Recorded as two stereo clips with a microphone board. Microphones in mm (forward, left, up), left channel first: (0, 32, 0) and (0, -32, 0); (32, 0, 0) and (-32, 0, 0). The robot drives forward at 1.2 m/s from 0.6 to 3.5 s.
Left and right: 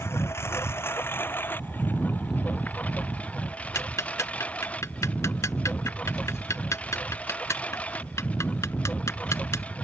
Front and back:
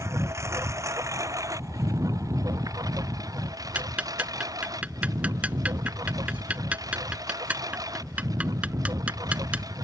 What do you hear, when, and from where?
0.0 s a lawn mower: 140° left; by 9.8 s 160° left
3.8 s ticking: 115° left